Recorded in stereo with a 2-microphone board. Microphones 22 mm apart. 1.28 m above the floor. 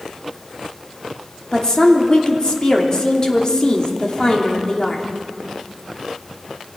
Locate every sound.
1.5 s a woman speaking: 35° left (ahead or behind), 3 m